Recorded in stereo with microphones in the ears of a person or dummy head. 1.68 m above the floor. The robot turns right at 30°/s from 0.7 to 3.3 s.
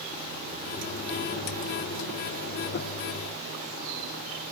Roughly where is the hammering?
No hammering in this recording.